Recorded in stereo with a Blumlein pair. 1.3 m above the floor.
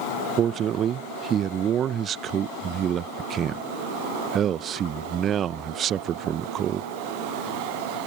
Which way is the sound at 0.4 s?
30° right.